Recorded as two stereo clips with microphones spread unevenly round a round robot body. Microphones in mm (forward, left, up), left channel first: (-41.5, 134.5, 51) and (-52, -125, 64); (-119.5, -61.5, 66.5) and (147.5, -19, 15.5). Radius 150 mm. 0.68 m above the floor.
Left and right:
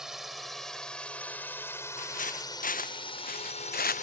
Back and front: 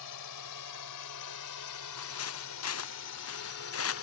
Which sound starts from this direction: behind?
A drone, at 0.0 s.